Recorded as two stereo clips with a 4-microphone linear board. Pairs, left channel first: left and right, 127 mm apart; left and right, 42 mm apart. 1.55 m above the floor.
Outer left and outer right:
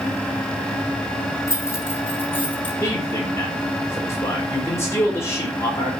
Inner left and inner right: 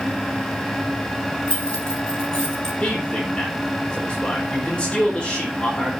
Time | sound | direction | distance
1.5 | keys jangling | 25° left (ahead or behind) | 3 m
2.8 | a man speaking | 25° left (ahead or behind) | 4 m